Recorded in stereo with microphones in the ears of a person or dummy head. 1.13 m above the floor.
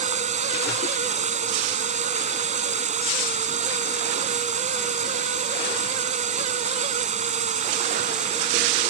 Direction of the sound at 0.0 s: 40° right (ahead or behind).